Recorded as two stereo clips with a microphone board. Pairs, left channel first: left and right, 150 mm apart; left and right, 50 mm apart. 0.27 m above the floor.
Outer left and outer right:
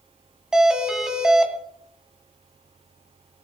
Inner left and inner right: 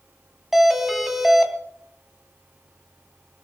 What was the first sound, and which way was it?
A doorbell, 5° right (ahead or behind).